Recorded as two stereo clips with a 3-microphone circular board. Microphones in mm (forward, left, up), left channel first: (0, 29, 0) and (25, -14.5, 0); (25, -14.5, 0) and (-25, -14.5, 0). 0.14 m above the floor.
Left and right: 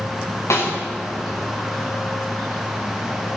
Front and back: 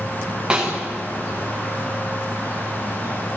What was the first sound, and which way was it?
A snare drum, 110° left.